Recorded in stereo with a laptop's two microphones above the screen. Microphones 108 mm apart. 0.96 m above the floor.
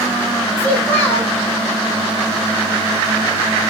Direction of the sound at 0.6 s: 20° left (ahead or behind).